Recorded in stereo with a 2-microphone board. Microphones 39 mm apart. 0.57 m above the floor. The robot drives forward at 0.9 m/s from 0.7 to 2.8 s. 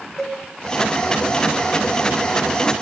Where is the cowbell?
10° left (ahead or behind), 1.9 m.